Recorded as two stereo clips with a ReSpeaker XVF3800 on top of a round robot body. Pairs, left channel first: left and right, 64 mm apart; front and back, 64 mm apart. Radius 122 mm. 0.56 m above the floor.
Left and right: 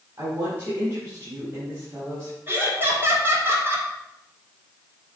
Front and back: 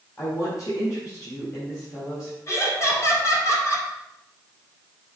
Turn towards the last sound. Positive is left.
turn(degrees=-40)